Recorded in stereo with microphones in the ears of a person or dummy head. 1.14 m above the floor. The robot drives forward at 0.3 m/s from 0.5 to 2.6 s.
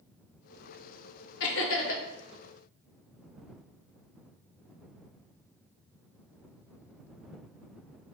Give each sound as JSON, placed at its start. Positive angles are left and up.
{"t": 1.4, "sound": "laughter", "side_deg": 60, "distance_m": 0.7}